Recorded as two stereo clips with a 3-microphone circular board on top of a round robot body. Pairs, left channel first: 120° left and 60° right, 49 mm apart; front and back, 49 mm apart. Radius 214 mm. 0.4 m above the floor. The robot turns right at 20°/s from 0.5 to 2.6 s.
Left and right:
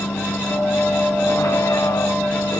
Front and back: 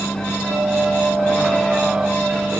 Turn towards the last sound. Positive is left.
turn(degrees=115)